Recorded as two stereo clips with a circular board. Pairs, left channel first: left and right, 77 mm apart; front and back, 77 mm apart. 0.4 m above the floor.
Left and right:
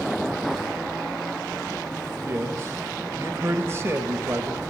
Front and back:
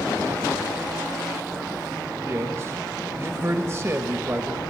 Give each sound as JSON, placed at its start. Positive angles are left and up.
{"t": 2.2, "sound": "a man speaking", "azimuth_deg": -135, "distance_m": 1.3}